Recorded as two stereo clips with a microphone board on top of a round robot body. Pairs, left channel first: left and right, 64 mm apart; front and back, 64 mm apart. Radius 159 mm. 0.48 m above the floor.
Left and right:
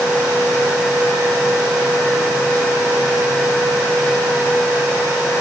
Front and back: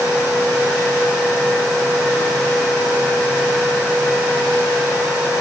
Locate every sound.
Only background noise.